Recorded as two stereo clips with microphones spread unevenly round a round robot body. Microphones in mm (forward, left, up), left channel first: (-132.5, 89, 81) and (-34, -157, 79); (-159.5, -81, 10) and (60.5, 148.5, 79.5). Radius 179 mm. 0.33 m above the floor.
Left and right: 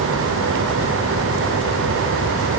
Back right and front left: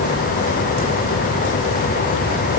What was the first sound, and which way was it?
Only background noise.